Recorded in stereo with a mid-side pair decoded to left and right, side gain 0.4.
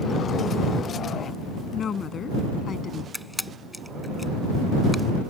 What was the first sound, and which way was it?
A woman speaking, 60° left.